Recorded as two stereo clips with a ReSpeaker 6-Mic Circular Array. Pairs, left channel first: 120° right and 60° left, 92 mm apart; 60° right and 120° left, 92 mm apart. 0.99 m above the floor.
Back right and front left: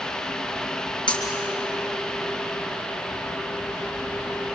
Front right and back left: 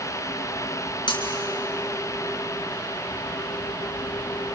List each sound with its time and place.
1.1 s breaking glass: 90° right, 5.5 m